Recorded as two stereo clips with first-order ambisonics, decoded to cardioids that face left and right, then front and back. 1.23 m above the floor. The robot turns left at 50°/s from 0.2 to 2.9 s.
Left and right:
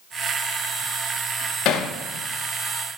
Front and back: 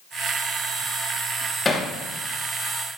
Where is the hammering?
75° left, 0.9 m; by 1.9 s 60° left, 0.9 m.